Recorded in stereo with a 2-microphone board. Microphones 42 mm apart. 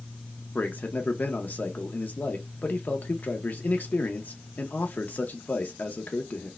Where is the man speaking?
45° left (ahead or behind), 0.8 m.